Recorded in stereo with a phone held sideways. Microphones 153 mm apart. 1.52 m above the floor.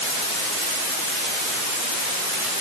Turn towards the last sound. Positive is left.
No sound to turn to.